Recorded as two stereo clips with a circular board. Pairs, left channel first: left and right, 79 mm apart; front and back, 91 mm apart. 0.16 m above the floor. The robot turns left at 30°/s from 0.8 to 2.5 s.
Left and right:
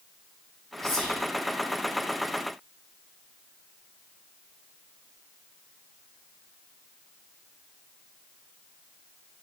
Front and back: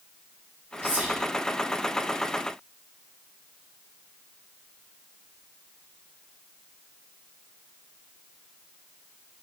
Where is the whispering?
170° left, 1.2 m; by 1.2 s 160° left, 1.2 m.